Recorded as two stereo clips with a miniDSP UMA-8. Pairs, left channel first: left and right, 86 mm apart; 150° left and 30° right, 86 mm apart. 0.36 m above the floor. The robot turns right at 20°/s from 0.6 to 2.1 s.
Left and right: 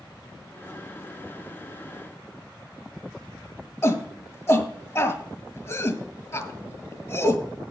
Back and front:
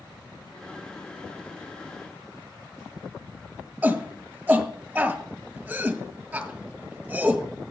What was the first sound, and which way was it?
A shout, 40° left.